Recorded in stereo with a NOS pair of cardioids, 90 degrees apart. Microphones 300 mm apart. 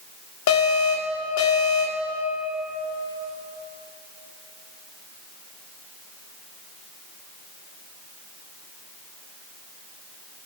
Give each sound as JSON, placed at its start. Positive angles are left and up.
{"t": 0.5, "sound": "an alarm", "azimuth_deg": 70, "distance_m": 2.5}